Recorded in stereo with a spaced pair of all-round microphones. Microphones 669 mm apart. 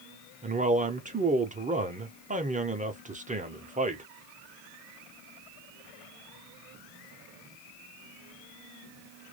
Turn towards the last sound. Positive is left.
turn(degrees=-15)  # may be behind; listen again after turning